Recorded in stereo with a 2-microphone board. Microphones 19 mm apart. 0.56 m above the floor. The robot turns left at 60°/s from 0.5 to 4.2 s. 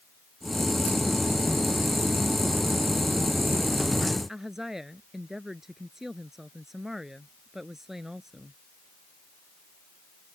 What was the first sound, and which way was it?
A woman speaking, 30° right (ahead or behind).